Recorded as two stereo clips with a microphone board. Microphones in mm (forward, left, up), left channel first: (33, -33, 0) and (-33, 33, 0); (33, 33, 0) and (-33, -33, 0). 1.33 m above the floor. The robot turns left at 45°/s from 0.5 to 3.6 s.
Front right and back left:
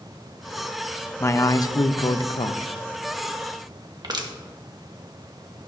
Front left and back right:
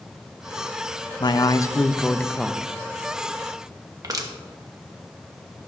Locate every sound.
1.2 s a man speaking: 15° left, 0.5 m; by 2.7 s 50° right, 0.5 m
4.0 s crushing: 175° left, 1.1 m